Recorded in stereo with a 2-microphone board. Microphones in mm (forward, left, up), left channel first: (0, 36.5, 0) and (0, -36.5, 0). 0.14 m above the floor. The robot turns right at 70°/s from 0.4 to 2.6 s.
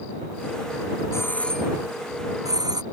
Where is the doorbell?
40° left (ahead or behind); by 2.8 s 65° right (ahead or behind).